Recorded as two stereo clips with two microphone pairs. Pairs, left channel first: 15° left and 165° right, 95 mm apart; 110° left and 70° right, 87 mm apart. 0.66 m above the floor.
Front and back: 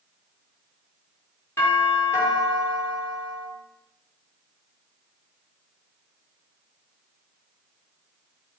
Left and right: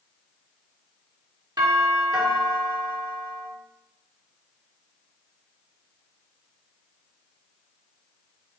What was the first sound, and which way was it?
A doorbell, 45° right.